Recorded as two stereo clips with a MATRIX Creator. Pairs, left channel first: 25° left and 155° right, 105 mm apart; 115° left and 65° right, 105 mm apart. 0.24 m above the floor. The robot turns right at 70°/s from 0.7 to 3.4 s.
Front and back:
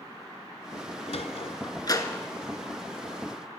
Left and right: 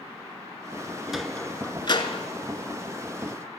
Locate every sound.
1.1 s a sliding door: 15° left, 0.8 m; by 2.3 s 100° left, 0.8 m